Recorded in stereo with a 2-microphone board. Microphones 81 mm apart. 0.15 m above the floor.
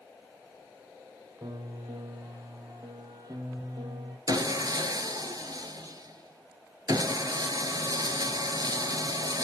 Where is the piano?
50° right (ahead or behind), 1.7 m.